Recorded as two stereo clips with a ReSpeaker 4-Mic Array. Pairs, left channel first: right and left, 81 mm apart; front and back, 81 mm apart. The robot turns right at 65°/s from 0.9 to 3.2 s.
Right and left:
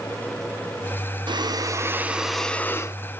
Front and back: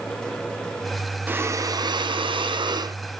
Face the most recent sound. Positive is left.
turn(degrees=-125)